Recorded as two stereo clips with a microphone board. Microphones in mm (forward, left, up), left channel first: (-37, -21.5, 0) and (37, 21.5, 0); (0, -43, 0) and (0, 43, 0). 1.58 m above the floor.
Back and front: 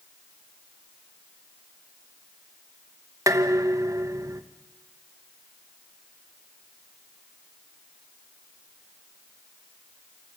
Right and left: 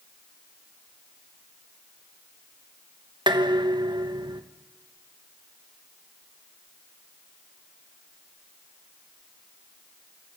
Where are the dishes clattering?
75° left, 1.1 m.